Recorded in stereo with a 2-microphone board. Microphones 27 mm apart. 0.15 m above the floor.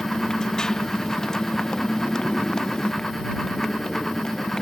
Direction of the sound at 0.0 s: 20° left (ahead or behind).